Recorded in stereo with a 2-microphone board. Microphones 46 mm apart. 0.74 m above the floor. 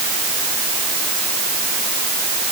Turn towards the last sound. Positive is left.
No sound to turn to.